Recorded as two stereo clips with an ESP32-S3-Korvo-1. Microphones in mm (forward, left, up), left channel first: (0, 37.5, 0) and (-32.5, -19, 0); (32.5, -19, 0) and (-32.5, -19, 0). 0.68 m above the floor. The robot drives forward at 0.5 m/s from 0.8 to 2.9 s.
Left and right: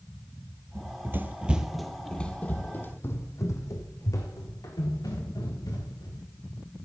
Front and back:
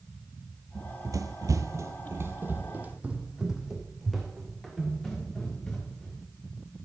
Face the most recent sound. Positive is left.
turn(degrees=75)